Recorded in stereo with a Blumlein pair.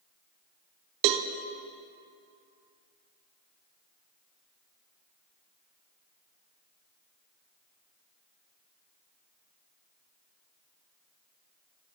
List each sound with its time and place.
1.0 s a cowbell: 40° right, 0.9 m